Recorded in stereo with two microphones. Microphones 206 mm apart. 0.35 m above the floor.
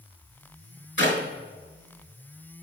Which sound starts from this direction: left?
A clap, at 1.0 s.